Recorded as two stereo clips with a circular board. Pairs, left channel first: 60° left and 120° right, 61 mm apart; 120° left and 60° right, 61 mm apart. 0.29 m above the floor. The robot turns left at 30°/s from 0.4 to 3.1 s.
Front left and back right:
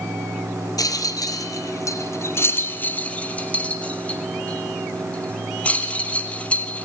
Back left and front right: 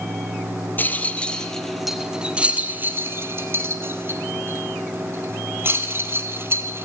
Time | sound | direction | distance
0.8 | a rattle | 60° left | 1.6 m